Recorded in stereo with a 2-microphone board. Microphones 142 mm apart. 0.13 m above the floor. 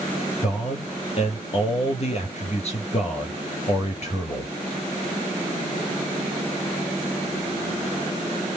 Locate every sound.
0.4 s a man speaking: 45° left (ahead or behind), 3.5 m